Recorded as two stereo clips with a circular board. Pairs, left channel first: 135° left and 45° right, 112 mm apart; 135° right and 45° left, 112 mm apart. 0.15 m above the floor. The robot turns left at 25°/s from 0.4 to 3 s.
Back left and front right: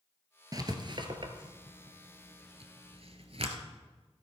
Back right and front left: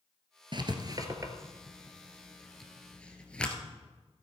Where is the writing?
5° left, 1.2 m; by 3.5 s 55° right, 1.2 m.